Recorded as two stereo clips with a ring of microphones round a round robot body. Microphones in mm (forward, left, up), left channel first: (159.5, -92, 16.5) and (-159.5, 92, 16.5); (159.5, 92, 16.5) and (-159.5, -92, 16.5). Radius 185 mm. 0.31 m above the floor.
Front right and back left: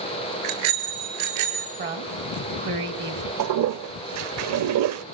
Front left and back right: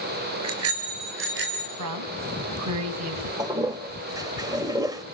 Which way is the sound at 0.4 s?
160° left.